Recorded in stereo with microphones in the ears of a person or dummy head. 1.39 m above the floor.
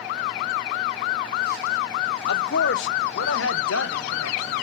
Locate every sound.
2.3 s a man speaking: 60° left (ahead or behind), 1.0 m; by 4.6 s 80° left, 2.5 m